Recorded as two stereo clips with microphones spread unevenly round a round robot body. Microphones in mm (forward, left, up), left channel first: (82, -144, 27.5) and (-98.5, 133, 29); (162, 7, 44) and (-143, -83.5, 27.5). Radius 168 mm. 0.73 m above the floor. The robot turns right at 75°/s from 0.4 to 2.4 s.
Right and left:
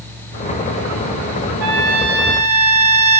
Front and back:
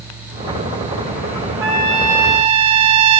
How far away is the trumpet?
About 1.8 m.